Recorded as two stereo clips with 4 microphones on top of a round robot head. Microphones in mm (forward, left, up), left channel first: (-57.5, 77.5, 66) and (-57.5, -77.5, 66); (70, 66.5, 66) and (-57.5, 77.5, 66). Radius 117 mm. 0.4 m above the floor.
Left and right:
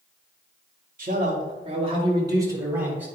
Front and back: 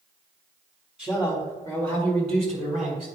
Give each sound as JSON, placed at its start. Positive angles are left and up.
{"t": 1.0, "sound": "a man speaking", "azimuth_deg": -100, "distance_m": 2.5}